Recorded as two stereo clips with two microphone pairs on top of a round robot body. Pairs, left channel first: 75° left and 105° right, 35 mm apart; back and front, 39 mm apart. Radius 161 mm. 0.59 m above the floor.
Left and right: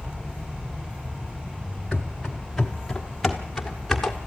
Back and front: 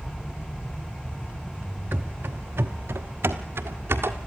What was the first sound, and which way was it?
Running footsteps, 25° right.